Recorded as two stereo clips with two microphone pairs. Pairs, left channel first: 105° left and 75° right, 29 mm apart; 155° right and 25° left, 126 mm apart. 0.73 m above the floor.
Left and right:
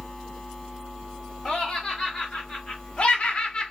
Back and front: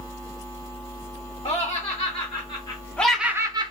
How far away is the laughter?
About 1.3 m.